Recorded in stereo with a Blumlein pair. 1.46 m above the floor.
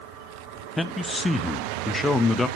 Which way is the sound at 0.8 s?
5° left.